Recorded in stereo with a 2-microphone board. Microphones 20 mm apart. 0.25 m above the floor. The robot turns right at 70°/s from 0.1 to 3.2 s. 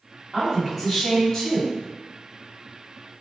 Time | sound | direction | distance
0.3 | a woman speaking | 35° right | 1.3 m